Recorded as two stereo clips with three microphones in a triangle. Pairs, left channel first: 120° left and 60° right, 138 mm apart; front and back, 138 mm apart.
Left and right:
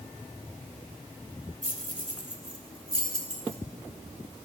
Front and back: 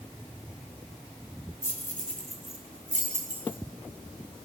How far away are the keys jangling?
About 1.5 m.